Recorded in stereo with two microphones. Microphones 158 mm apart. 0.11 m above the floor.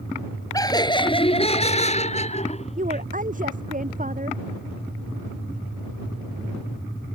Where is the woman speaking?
55° right (ahead or behind).